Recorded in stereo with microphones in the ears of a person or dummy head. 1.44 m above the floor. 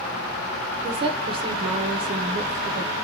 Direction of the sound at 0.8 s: 30° right (ahead or behind).